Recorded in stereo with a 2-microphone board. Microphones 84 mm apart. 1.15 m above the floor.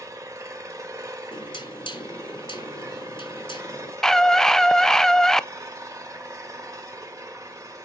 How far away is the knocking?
About 1.7 m.